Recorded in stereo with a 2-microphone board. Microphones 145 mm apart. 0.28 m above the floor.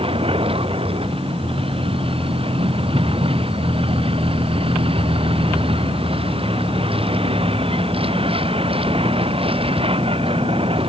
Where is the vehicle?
40° right (ahead or behind).